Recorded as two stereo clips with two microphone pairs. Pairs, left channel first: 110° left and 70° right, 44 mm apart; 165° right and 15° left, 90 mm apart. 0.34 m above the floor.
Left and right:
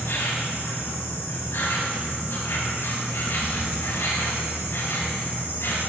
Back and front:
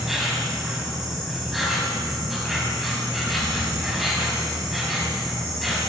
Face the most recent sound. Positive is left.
turn(degrees=105)